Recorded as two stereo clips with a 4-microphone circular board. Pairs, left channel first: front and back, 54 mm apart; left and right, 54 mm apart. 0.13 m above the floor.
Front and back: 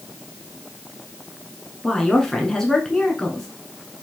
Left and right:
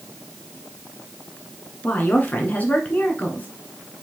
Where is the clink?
No clink in this recording.